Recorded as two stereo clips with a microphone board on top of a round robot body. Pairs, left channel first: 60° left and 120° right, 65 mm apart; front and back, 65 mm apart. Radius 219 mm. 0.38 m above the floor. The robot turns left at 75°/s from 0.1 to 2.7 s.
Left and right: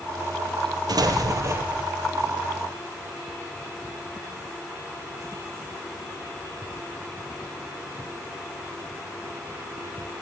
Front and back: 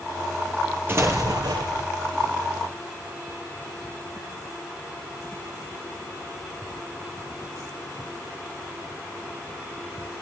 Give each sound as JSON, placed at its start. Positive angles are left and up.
{"t": 0.9, "sound": "an explosion", "azimuth_deg": -120, "distance_m": 4.0}